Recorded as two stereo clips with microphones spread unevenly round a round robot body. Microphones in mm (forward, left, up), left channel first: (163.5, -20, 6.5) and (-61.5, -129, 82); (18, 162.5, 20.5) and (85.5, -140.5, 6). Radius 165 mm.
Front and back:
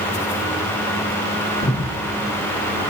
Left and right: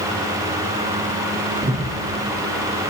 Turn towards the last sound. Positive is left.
turn(degrees=-15)